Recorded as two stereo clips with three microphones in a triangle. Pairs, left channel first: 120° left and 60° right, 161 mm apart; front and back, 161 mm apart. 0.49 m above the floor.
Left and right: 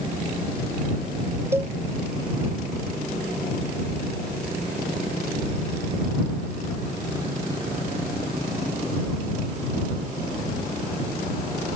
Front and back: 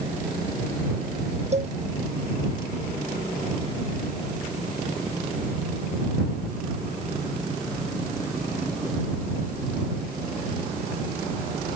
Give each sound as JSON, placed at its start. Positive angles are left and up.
{"t": 1.5, "sound": "a cowbell", "azimuth_deg": -135}